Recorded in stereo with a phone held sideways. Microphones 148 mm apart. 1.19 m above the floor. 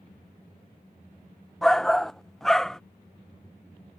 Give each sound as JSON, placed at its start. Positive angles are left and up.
{"t": 1.6, "sound": "a shout", "side_deg": 5}